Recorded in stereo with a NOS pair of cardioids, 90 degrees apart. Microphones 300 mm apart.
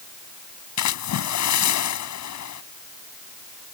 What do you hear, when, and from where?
0.8 s a splash: 65° left